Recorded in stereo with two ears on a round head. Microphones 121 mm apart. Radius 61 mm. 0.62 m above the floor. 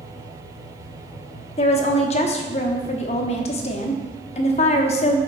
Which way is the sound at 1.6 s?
50° left (ahead or behind).